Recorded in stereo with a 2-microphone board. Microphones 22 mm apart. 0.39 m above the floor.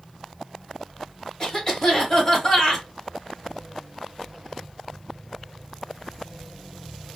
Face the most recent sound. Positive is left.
turn(degrees=25)  # may be behind; listen again after turning